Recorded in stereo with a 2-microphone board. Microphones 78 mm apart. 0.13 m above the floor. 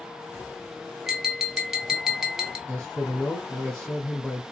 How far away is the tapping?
About 1.1 m.